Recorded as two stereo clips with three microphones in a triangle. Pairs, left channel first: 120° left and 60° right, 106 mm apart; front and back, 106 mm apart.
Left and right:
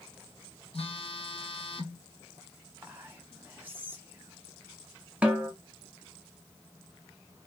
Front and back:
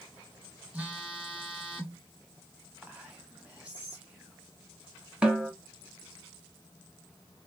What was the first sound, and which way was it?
A phone buzzing, 105° left.